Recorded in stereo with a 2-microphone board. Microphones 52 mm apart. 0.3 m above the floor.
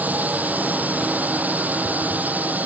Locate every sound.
0.0 s a drone: 35° right (ahead or behind)